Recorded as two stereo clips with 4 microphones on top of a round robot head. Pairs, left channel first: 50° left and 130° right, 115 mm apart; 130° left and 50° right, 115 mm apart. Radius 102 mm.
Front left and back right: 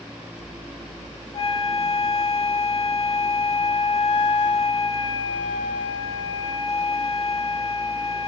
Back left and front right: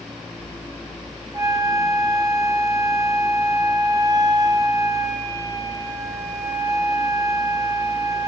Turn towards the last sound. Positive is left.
turn(degrees=10)